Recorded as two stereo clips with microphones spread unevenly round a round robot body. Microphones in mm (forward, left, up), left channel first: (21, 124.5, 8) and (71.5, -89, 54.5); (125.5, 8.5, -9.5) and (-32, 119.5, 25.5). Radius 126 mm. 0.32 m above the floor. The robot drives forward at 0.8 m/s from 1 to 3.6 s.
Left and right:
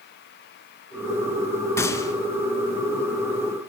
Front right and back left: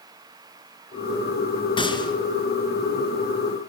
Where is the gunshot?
30° left, 3 m.